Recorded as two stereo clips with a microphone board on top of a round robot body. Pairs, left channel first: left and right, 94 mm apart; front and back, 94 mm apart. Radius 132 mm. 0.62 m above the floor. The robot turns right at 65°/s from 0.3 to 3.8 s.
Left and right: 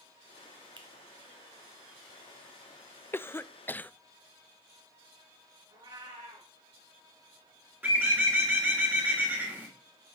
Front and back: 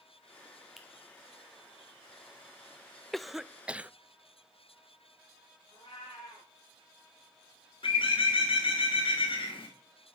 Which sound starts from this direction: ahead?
A bird, at 7.8 s.